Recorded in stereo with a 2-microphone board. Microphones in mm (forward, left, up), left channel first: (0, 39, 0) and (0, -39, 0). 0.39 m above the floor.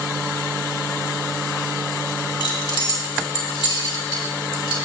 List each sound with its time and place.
2.4 s keys jangling: 65° left (ahead or behind), 2 m